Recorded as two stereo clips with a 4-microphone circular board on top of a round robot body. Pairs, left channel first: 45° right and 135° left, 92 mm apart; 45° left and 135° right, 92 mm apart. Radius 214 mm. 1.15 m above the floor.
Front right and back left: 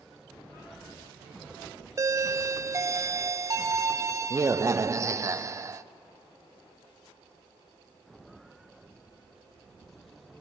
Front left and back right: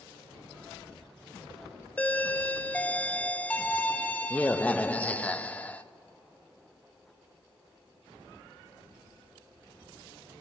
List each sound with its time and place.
2.0 s a doorbell: 110° left, 0.6 m